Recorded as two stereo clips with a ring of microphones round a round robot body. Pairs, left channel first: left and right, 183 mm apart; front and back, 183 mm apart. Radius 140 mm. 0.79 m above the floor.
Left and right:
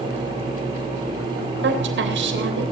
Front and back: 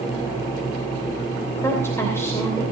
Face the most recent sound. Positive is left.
turn(degrees=-80)